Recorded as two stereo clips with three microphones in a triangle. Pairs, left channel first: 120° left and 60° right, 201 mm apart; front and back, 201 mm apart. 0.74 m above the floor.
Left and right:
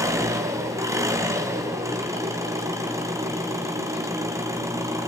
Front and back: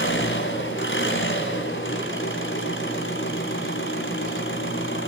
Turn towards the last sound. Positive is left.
turn(degrees=15)